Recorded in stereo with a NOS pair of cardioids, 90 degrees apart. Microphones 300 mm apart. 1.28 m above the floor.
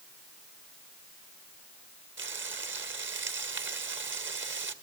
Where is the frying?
40° right, 1.9 m.